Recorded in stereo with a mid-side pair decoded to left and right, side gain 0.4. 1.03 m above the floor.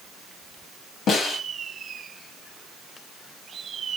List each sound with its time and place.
1.1 s a snare drum: 70° left, 1.6 m